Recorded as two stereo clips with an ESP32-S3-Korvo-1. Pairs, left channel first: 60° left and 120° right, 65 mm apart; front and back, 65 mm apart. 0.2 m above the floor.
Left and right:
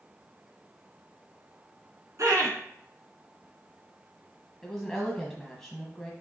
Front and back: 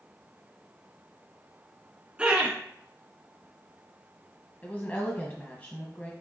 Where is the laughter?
110° right, 1.9 m.